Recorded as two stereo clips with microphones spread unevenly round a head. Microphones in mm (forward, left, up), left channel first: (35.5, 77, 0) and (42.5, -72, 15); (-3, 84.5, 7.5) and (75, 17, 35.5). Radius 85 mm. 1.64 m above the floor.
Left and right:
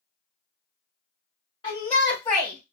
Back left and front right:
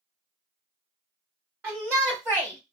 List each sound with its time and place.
1.6 s a shout: 35° left, 1.6 m; by 2.7 s 20° left, 1.1 m